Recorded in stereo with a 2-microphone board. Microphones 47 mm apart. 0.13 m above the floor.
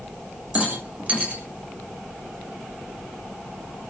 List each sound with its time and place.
0.6 s a rattle: 30° right (ahead or behind), 8 m